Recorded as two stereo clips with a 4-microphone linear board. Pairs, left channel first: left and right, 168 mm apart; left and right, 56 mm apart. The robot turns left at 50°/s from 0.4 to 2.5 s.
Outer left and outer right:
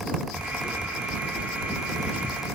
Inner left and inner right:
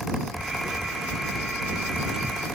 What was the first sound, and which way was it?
Only background noise.